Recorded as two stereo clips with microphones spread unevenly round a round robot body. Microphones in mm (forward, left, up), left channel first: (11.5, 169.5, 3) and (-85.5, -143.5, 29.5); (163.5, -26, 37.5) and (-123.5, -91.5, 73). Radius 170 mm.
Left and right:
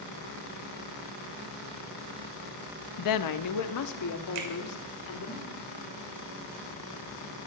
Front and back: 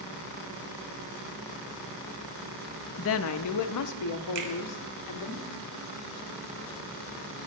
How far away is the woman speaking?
About 0.7 m.